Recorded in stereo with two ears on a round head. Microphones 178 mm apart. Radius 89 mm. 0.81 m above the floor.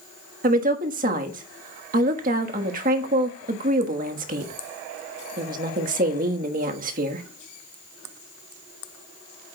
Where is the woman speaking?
40° right (ahead or behind), 1.4 m.